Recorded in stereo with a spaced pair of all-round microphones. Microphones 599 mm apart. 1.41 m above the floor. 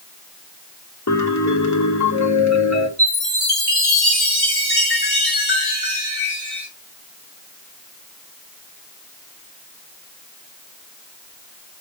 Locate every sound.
1.1 s a piano: 30° left (ahead or behind), 0.8 m
3.0 s a chime: 65° left (ahead or behind), 3.5 m